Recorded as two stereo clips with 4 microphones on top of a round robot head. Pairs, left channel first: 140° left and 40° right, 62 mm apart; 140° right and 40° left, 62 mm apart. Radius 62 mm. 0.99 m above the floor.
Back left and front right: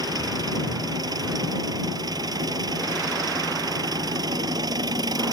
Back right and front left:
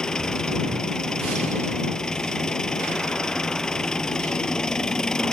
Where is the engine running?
55° right.